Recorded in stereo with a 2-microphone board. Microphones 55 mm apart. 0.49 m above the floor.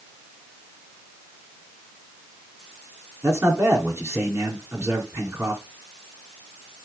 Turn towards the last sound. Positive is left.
turn(degrees=-50)  # may be behind; listen again after turning